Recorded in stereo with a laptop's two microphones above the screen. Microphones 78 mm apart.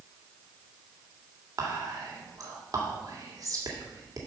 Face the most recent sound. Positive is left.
turn(degrees=-50)  # may be behind; listen again after turning